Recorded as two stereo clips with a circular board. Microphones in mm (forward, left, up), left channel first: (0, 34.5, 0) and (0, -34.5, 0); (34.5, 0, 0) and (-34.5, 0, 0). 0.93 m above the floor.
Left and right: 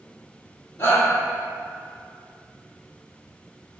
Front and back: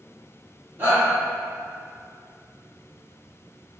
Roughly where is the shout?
Behind left.